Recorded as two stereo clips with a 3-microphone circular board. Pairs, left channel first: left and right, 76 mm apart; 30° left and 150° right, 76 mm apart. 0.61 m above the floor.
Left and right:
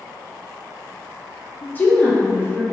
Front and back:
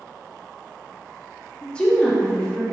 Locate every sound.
1.6 s a woman speaking: 85° left, 0.6 m